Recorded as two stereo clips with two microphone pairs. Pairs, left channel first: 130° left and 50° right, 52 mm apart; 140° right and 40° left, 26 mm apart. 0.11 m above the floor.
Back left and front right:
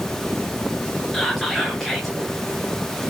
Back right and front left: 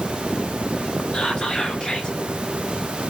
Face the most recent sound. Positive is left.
turn(degrees=-150)